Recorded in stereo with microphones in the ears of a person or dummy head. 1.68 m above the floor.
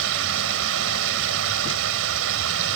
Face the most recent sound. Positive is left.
turn(degrees=-75)  # may be behind; listen again after turning